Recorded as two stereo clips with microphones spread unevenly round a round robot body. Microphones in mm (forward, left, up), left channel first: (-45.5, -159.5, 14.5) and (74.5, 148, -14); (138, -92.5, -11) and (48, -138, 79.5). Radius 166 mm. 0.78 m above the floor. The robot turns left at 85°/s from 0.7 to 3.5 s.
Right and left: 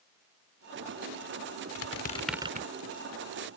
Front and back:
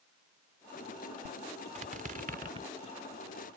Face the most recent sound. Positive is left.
turn(degrees=55)